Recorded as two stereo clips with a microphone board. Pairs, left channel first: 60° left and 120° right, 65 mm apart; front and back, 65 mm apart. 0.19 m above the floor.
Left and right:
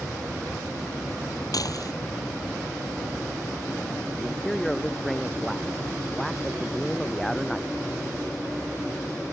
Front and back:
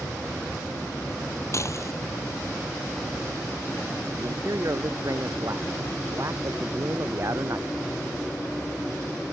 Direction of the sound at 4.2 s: 145° left.